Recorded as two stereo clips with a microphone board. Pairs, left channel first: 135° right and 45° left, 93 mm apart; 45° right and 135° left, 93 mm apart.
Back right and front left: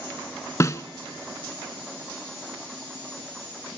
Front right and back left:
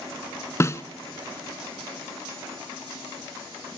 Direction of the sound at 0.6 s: 90° right.